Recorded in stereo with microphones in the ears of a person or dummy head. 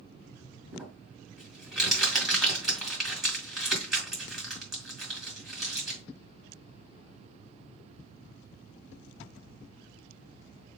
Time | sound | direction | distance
0.7 | crumpling | centre (ahead or behind) | 1.9 m